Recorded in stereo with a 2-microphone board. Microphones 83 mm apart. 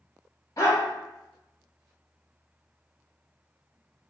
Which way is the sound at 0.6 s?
45° left (ahead or behind).